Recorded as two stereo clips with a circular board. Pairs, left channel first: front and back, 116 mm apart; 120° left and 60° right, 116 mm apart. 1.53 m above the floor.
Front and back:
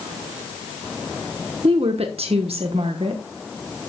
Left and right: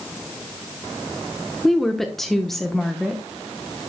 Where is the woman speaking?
155° right, 1.0 m.